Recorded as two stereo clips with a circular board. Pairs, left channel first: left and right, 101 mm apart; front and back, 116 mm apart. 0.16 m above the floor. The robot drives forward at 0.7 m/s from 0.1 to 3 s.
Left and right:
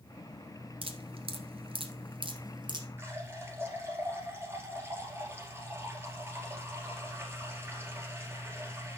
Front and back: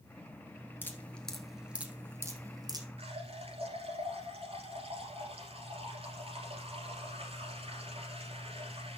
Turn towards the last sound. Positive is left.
turn(degrees=-155)